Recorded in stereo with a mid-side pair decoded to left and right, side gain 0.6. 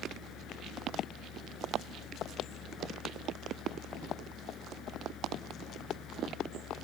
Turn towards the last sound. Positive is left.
turn(degrees=55)